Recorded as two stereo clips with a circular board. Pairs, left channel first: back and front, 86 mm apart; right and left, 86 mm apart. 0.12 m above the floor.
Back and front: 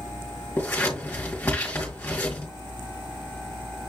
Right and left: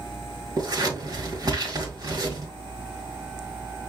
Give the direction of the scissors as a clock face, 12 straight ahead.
8 o'clock.